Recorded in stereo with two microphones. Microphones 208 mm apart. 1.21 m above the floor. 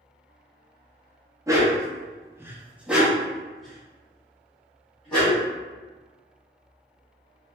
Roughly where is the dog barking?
Centre.